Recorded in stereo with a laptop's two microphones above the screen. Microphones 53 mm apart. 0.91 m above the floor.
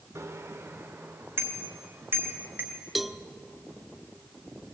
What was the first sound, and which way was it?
A bicycle bell, 60° right (ahead or behind).